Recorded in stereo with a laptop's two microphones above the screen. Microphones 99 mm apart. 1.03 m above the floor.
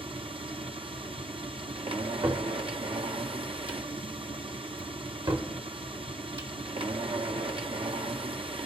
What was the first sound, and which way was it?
A machine running, 70° right (ahead or behind).